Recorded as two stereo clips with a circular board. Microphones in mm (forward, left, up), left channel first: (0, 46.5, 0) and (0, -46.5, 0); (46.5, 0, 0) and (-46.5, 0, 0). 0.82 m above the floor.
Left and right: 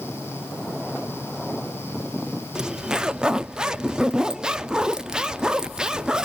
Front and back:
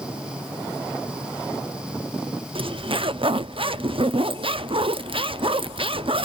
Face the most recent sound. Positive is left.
turn(degrees=-170)